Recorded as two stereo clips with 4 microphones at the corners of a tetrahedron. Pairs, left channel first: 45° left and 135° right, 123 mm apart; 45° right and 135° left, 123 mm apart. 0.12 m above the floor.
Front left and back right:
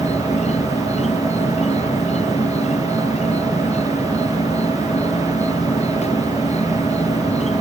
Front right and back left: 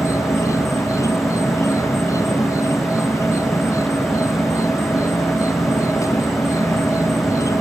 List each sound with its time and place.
0.0 s an insect: 20° left